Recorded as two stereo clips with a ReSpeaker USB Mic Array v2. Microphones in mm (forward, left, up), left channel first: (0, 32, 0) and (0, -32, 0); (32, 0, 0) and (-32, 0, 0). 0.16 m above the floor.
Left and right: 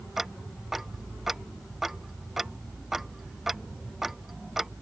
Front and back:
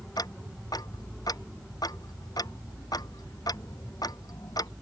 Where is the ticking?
5° right.